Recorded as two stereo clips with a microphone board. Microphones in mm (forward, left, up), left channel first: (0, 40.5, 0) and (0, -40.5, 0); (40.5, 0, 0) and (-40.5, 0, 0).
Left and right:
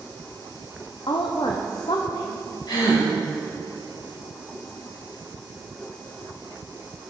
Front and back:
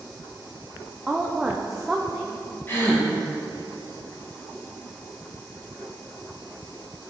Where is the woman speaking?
95° left, 0.6 m.